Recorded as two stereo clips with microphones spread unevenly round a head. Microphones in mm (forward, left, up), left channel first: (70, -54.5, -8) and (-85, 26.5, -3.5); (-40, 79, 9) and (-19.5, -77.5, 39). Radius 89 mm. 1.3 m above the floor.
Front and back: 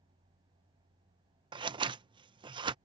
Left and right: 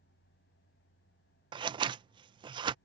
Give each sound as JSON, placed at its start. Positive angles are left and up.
{"t": 1.5, "sound": "scissors", "azimuth_deg": -145}